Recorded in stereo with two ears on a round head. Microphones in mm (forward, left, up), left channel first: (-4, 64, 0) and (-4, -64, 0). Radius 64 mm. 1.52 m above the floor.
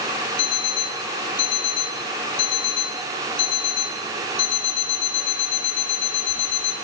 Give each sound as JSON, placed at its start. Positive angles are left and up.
{"t": 0.4, "sound": "an alarm clock", "side_deg": 75, "distance_m": 3.5}